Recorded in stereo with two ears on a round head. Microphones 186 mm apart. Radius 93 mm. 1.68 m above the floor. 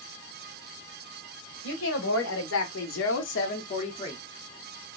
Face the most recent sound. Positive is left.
turn(degrees=15)  # may be behind; listen again after turning